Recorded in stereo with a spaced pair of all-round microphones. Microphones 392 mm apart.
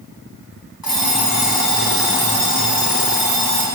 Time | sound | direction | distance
0.8 | an alarm clock | 60° left (ahead or behind) | 4.5 m